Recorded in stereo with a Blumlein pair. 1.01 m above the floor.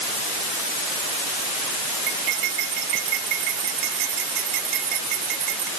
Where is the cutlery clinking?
40° right.